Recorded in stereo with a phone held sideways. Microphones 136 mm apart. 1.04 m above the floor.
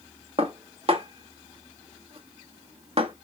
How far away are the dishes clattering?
About 1.0 m.